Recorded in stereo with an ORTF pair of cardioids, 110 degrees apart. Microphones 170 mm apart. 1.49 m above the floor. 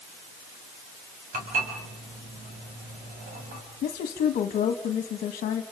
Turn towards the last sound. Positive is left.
turn(degrees=60)